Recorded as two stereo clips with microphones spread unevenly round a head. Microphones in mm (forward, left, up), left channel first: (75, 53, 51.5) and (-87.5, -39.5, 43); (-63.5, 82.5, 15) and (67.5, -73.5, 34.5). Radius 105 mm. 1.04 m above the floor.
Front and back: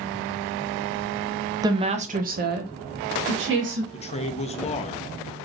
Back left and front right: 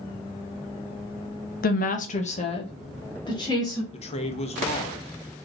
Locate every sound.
1.6 s a woman speaking: 145° left, 0.7 m; by 3.8 s 160° right, 1.9 m
3.9 s a man speaking: 80° left, 0.8 m